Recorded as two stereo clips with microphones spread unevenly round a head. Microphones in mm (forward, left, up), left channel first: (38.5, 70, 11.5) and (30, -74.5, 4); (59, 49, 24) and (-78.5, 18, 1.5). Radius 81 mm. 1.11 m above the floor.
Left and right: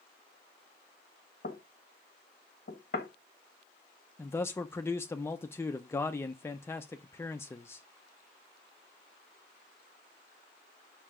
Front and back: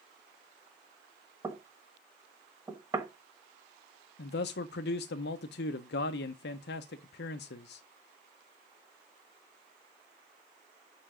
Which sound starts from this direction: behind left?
Knocking, at 1.4 s.